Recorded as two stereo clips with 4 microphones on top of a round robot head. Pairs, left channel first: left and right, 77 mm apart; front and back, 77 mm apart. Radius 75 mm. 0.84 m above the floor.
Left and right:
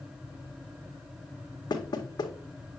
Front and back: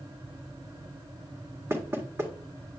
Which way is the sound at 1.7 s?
120° left.